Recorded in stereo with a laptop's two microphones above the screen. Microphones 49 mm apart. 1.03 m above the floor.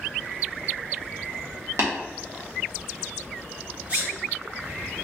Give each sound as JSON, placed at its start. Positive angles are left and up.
{"t": 1.8, "sound": "tapping", "side_deg": -75, "distance_m": 1.3}
{"t": 3.9, "sound": "a sneeze", "side_deg": -55, "distance_m": 1.7}